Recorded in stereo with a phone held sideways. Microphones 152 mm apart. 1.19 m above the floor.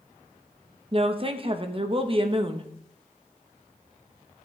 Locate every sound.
0.9 s a woman speaking: 40° right (ahead or behind), 1.0 m